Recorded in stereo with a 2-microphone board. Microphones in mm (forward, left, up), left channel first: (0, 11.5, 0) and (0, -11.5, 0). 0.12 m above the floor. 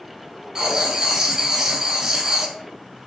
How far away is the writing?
About 0.7 m.